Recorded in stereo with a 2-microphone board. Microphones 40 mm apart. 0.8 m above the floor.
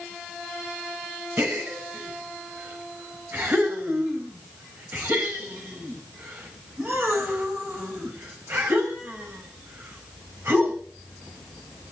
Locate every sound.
1.4 s a gasp: 55° right (ahead or behind), 5.5 m